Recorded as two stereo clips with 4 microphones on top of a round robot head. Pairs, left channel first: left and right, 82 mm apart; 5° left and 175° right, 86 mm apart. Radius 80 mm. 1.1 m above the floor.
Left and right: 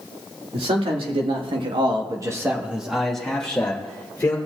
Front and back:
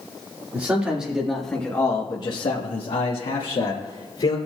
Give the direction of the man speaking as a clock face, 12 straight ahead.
3 o'clock.